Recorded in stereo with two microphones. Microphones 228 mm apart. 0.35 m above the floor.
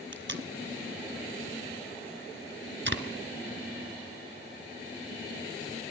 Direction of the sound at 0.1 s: 55° right (ahead or behind).